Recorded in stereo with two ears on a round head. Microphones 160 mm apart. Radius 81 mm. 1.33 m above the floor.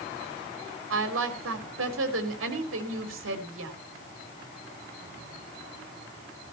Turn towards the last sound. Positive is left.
turn(degrees=-75)  # may be behind; listen again after turning